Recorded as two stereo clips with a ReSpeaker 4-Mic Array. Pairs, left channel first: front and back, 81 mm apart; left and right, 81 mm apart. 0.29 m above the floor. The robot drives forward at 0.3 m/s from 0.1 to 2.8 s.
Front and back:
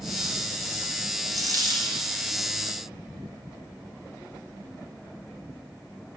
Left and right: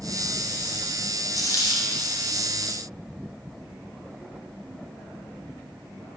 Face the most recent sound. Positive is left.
turn(degrees=145)